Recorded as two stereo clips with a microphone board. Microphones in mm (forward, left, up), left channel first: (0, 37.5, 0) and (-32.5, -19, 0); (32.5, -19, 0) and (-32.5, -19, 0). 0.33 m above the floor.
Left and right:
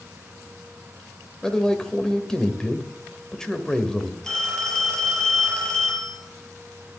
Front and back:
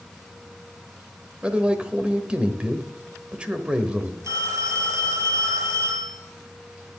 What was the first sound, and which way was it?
A man speaking, 130° left.